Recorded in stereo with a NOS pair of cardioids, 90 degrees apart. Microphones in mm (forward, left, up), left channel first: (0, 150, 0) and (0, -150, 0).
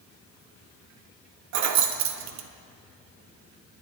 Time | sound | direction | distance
1.5 | keys jangling | 60° right | 0.7 m